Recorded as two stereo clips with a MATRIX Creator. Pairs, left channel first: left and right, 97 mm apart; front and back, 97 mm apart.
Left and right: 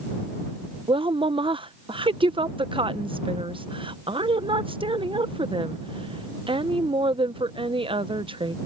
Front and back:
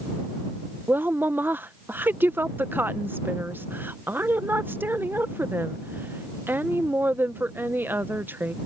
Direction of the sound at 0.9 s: 115° right.